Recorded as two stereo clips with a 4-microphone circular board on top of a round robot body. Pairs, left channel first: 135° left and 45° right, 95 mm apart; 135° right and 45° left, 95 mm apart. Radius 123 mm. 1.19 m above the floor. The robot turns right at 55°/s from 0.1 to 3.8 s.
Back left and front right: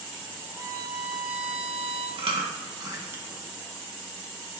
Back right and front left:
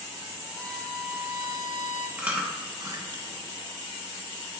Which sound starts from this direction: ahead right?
Chewing, at 2.2 s.